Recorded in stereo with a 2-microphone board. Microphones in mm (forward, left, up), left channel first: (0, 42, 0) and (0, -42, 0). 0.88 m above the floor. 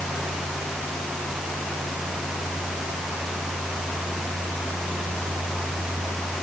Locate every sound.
Only background noise.